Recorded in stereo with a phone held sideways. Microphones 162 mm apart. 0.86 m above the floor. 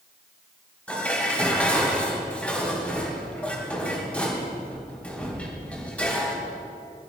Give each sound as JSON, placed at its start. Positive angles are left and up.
{"t": 0.9, "sound": "dishes clattering", "side_deg": 10, "distance_m": 3.5}